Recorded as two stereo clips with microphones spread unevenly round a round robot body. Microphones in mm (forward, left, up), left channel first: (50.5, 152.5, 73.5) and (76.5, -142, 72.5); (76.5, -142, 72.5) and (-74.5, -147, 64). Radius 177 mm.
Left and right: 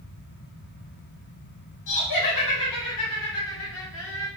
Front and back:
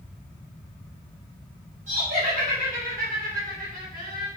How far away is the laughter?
About 4 m.